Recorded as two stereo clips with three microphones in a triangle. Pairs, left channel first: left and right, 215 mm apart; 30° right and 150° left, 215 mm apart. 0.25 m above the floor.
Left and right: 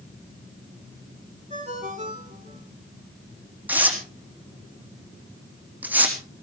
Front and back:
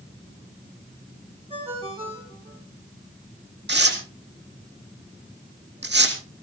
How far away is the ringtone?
About 6.5 m.